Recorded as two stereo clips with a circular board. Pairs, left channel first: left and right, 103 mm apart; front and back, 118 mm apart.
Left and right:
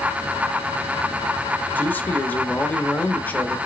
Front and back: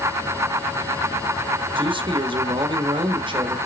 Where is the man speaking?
155° left, 1.0 m.